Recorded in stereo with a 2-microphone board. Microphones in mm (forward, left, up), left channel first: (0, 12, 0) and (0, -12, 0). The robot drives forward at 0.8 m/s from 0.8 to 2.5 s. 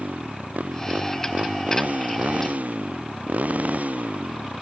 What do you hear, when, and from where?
0.0 s a motorcycle: 85° right; by 4.6 s 80° right